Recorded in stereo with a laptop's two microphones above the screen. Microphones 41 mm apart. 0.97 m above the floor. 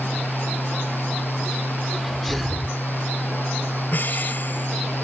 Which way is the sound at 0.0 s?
60° left (ahead or behind).